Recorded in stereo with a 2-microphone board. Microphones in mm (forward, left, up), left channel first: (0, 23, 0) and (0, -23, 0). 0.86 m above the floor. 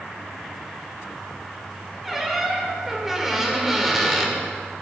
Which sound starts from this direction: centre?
A squeak, at 2.0 s.